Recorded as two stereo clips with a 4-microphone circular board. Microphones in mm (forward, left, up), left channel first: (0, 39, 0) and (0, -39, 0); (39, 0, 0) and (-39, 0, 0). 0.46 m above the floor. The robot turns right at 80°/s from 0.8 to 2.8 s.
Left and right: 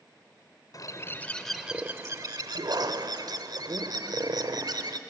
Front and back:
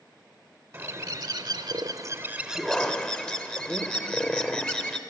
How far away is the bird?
About 0.7 m.